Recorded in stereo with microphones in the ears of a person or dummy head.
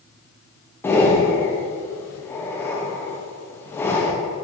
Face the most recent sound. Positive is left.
turn(degrees=10)  # may be behind; listen again after turning